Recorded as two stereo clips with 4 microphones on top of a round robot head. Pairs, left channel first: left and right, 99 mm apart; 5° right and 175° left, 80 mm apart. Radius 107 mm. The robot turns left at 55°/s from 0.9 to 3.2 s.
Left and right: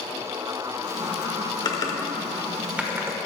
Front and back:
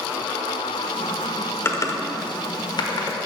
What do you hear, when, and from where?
1.6 s typing on a keyboard: 50° left, 1.2 m; by 3.2 s 30° right, 1.2 m